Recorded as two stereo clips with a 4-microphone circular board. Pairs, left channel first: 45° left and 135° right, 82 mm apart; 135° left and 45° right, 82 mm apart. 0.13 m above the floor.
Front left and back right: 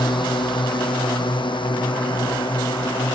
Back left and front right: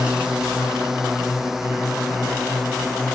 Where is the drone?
35° left; by 3.2 s 40° left.